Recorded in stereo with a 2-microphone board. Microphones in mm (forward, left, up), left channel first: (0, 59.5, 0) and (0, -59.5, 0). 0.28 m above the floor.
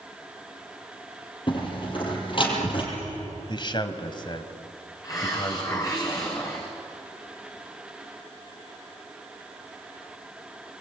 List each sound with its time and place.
1.5 s a door slam: 45° left (ahead or behind), 6.5 m
3.5 s a man speaking: 45° left (ahead or behind), 1.8 m
5.0 s a hiss: 30° left (ahead or behind), 6.5 m